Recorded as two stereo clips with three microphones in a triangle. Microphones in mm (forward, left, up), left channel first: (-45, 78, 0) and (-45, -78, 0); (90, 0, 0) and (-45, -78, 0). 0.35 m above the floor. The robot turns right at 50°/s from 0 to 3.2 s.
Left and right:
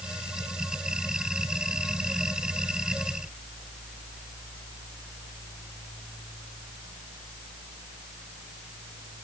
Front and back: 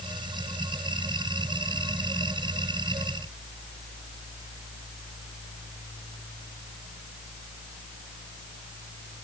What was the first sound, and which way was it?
Only background noise.